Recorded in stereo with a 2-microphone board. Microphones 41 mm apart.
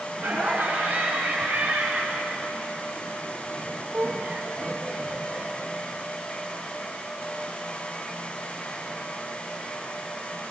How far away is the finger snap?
No finger snap in this recording.